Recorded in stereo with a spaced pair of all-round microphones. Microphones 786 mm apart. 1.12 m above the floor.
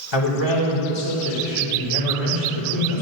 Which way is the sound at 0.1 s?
35° left (ahead or behind).